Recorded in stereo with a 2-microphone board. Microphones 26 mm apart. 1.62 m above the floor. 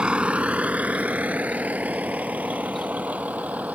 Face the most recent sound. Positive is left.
turn(degrees=-80)